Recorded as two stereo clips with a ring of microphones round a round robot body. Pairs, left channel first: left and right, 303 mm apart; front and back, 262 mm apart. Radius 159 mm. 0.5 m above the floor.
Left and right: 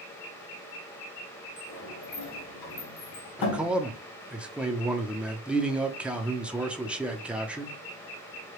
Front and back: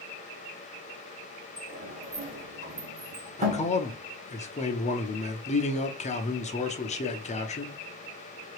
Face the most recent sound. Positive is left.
turn(degrees=-10)